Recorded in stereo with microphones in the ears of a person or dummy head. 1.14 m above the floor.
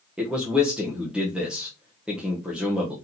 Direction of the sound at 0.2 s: 5° right (ahead or behind).